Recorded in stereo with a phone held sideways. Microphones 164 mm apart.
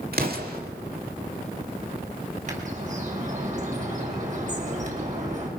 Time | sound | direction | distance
0.1 | an explosion | 70° right (ahead or behind) | 2 m
2.5 | a bird | 50° right (ahead or behind) | 4.5 m